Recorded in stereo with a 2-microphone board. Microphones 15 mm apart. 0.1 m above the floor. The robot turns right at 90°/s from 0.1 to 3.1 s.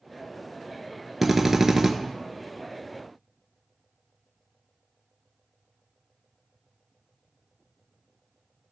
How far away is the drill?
About 0.8 m.